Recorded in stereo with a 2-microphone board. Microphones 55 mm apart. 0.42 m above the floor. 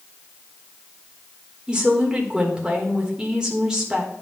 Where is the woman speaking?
15° right (ahead or behind), 1.3 m.